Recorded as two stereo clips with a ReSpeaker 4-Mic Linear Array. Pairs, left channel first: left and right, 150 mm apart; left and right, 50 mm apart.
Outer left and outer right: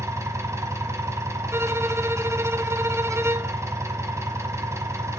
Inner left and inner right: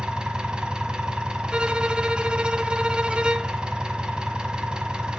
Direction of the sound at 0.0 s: 20° right (ahead or behind).